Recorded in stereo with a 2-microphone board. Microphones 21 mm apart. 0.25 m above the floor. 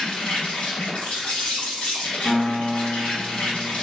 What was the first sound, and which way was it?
An insect, 60° left (ahead or behind).